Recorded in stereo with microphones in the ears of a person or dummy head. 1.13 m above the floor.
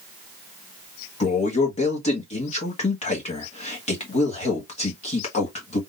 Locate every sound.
1.2 s a man speaking: 30° left (ahead or behind), 1.1 m